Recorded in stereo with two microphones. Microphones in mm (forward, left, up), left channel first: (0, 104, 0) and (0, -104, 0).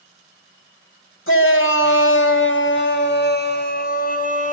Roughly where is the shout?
Left.